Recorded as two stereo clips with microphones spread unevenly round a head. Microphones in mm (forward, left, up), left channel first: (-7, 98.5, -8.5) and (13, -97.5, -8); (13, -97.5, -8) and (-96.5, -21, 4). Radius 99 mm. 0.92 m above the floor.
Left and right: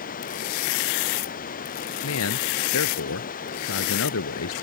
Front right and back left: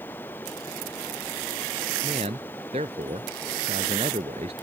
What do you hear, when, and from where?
0.0 s running water: 45° left
2.0 s a man speaking: 80° left